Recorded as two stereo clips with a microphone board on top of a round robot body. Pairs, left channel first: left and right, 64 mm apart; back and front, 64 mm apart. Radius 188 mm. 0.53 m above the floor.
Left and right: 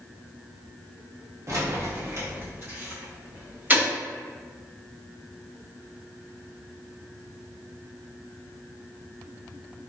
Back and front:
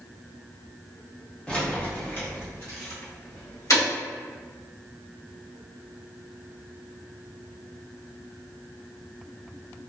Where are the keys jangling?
105° right, 1.1 m; by 3.9 s 150° right, 2 m.